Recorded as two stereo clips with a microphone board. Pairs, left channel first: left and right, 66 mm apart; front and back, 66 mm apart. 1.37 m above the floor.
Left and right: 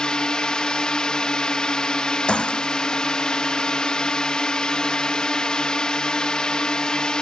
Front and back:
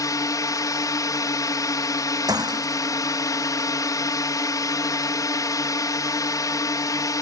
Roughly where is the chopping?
No chopping in this recording.